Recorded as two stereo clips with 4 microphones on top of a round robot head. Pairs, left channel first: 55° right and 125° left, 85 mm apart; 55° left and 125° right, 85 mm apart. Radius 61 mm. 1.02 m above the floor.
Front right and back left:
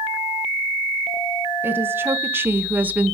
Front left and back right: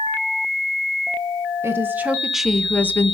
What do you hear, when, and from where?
1.6 s a woman speaking: 175° right, 0.9 m; by 3.2 s 60° left, 0.7 m